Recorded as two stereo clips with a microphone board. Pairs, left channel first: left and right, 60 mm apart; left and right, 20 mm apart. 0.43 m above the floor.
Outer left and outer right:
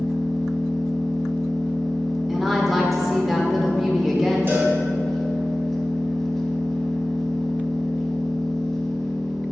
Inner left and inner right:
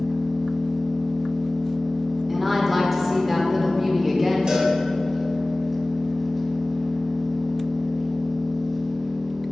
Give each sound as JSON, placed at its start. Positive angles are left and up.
{"t": 0.0, "sound": "an engine running", "side_deg": 5, "distance_m": 0.9}
{"t": 2.3, "sound": "a woman speaking", "side_deg": 0, "distance_m": 0.8}
{"t": 4.5, "sound": "a cowbell", "side_deg": -35, "distance_m": 1.6}